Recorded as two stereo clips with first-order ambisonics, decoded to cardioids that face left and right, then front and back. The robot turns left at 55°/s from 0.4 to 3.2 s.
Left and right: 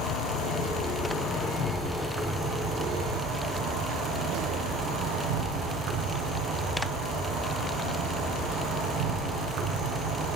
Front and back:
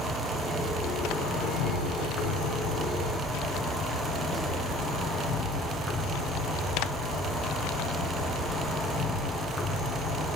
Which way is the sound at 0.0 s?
75° left.